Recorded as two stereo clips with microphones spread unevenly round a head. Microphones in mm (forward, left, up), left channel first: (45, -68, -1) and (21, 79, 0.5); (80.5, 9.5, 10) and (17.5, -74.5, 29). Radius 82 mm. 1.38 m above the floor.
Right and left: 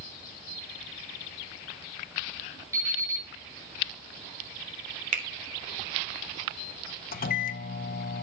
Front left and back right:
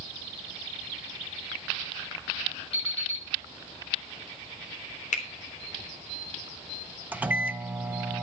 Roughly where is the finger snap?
Ahead left.